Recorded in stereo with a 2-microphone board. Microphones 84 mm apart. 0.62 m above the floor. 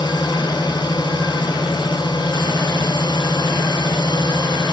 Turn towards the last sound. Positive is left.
turn(degrees=65)  # may be behind; listen again after turning